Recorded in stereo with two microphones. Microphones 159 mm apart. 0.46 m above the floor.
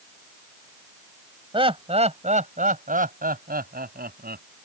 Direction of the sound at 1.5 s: 35° right (ahead or behind).